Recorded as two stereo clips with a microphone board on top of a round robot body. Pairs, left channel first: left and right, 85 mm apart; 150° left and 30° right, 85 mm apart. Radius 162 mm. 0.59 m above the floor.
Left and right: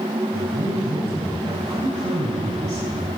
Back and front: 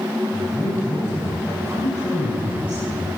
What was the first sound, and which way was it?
A man speaking, 140° right.